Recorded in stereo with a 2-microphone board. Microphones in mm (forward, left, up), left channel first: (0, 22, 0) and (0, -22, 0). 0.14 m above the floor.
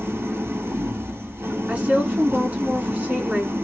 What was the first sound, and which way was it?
An engine running, 70° right (ahead or behind).